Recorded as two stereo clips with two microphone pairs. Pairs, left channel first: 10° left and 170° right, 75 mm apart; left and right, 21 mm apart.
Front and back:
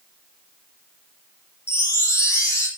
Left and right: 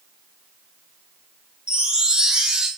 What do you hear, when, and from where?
1.7 s a chime: 40° right, 4 m